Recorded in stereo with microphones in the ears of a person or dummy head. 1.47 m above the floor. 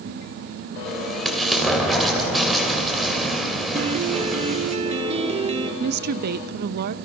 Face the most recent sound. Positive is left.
turn(degrees=-60)  # may be behind; listen again after turning